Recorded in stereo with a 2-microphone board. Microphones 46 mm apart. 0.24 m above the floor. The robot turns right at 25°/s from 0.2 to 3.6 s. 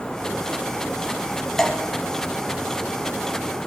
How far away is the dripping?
About 1.1 m.